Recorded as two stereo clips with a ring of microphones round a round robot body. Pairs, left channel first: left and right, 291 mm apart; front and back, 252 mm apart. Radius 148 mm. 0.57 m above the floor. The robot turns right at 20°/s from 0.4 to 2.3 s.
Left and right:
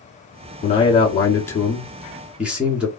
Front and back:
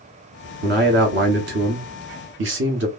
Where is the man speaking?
150° left, 1.1 m; by 2.9 s 175° right, 1.1 m.